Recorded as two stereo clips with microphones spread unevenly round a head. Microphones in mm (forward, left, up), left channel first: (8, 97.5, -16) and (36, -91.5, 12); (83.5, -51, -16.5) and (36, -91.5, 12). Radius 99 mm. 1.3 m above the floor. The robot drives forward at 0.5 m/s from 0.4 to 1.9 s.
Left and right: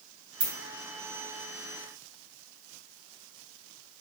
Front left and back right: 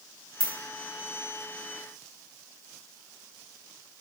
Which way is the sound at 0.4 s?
50° right.